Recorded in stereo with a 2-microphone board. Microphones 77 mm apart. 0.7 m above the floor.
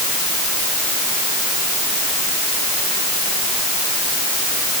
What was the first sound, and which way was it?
Only background noise.